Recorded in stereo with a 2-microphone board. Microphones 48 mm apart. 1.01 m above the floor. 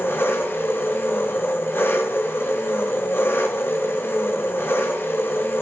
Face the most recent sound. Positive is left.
turn(degrees=60)  # may be behind; listen again after turning